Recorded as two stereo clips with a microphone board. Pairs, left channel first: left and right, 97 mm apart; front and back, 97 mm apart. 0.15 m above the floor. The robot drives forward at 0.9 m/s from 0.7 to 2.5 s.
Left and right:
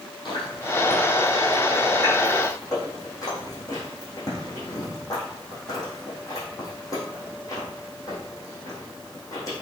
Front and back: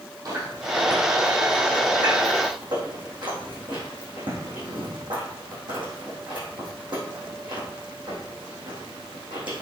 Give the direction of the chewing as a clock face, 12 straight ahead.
8 o'clock.